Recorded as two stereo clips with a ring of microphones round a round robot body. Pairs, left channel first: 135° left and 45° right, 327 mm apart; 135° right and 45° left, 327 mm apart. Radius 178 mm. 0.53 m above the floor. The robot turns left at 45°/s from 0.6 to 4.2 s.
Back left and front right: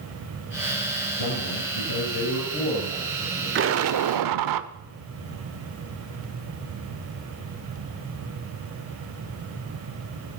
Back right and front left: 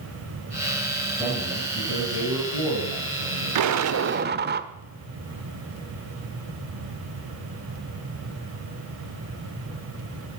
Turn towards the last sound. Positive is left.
turn(degrees=-15)